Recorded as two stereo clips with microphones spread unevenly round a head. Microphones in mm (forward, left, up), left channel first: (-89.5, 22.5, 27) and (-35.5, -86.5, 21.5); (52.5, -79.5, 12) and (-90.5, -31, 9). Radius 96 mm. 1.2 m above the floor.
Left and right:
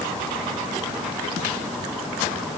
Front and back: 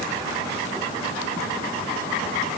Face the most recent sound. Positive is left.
No sound to turn to.